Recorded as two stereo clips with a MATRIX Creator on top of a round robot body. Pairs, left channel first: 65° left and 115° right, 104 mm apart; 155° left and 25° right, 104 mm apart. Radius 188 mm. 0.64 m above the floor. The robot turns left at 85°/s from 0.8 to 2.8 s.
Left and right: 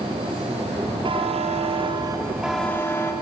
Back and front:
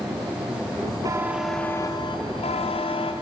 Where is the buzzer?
75° right, 2.5 m; by 3.1 s 135° left, 2.5 m.